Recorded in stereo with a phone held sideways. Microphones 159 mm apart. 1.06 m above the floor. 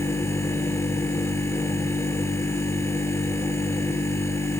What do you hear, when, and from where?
0.0 s a machine running: 15° left (ahead or behind), 3 m